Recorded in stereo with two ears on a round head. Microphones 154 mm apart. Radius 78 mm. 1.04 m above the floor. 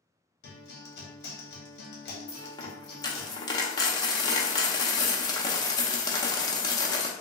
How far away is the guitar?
About 1.1 m.